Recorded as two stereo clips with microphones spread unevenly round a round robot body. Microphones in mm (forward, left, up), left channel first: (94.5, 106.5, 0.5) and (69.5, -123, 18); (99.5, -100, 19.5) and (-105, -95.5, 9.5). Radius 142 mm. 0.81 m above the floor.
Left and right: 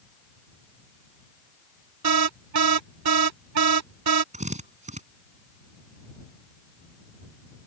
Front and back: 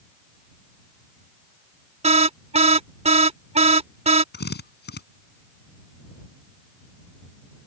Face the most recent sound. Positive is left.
turn(degrees=-35)